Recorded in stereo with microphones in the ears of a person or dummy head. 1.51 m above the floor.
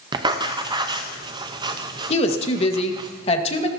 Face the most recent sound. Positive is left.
turn(degrees=40)  # may be behind; listen again after turning